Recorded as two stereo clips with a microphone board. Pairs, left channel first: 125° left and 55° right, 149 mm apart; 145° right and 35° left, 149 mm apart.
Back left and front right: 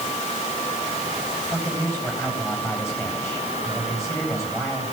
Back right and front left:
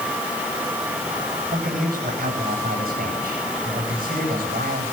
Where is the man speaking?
50° left, 10 m.